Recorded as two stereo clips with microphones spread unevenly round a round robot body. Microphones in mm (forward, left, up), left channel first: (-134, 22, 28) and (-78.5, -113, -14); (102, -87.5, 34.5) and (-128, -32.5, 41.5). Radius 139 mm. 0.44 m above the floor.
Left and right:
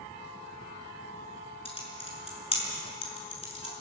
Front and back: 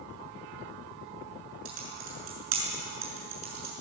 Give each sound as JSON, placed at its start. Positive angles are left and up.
{"t": 1.6, "sound": "typing on a keyboard", "azimuth_deg": 165, "distance_m": 6.5}